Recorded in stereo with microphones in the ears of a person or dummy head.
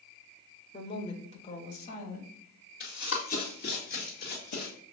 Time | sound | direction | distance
0.7 | a woman speaking | 30° left (ahead or behind) | 0.9 m
2.8 | running footsteps | 45° left (ahead or behind) | 2 m